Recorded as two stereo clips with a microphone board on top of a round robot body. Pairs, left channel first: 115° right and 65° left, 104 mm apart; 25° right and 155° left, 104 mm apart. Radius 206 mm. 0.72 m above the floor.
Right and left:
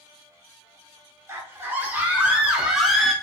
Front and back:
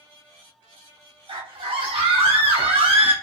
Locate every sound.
1.3 s a scream: 130° left, 2 m; by 3.1 s 160° left, 1.6 m